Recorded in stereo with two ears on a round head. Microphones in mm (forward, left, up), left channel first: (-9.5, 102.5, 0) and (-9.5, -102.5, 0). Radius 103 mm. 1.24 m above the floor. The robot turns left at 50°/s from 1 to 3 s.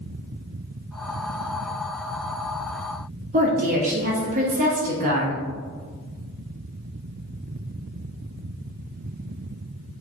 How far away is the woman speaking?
About 0.6 m.